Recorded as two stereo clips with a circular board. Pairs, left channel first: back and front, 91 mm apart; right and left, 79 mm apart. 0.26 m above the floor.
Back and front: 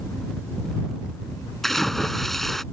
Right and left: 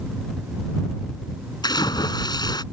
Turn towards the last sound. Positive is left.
turn(degrees=-95)